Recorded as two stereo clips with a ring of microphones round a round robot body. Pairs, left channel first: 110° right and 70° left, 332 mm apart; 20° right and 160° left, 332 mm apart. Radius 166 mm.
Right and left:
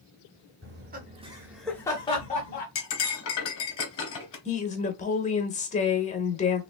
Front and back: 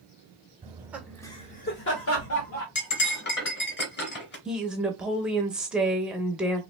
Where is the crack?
I don't hear a crack.